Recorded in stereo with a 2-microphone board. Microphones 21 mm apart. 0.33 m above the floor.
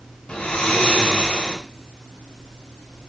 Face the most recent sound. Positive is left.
turn(degrees=65)  # may be behind; listen again after turning